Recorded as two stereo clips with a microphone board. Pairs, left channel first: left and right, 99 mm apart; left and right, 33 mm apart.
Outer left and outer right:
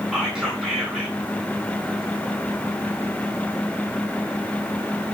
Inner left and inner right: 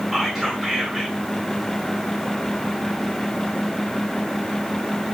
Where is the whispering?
5° right (ahead or behind), 2.5 m.